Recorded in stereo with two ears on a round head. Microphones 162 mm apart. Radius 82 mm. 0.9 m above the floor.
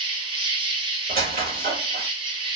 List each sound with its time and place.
0.0 s an insect: 30° right (ahead or behind), 0.8 m
1.1 s a squeak: 50° right (ahead or behind), 2 m